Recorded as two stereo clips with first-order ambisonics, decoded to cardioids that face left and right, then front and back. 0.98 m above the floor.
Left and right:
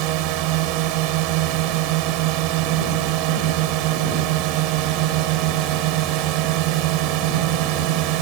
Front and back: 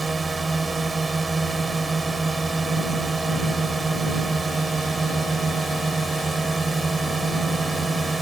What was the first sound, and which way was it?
A drone, 100° right.